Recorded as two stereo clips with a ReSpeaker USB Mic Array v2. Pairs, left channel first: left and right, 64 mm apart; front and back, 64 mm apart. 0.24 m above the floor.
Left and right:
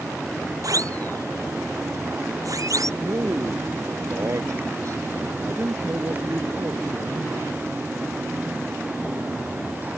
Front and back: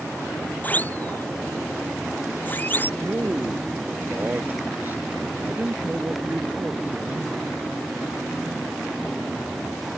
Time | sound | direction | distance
0.6 | a siren | 60° right | ?
3.0 | a man speaking | 120° right | ?